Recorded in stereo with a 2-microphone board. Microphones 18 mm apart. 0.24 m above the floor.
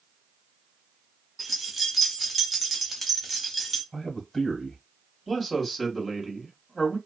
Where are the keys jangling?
10° right (ahead or behind), 1.0 m; by 3.8 s centre (ahead or behind), 1.1 m.